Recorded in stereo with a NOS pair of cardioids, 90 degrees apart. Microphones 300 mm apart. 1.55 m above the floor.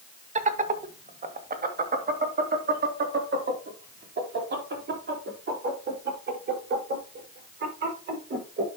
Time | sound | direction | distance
0.3 | laughter | 25° right | 1.4 m